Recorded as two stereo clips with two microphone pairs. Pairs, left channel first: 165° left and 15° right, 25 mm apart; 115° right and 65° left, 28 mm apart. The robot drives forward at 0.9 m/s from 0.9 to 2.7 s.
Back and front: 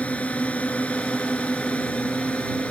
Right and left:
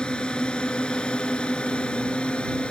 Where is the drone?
170° right; by 2.7 s 165° right.